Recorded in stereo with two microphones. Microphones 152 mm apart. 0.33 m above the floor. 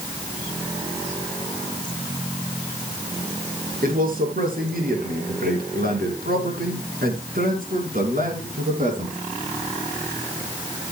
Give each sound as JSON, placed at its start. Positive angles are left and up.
{"t": 3.8, "sound": "a man speaking", "side_deg": -65, "distance_m": 5.5}